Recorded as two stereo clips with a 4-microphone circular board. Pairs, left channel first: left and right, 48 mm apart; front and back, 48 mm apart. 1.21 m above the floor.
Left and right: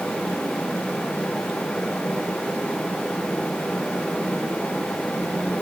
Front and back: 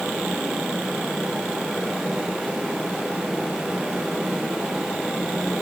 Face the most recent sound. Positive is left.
No sound to turn to.